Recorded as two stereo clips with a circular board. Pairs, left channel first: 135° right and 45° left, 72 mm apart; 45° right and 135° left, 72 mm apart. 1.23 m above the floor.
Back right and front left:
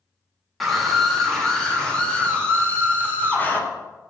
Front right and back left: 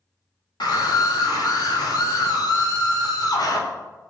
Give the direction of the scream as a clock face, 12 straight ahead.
1 o'clock.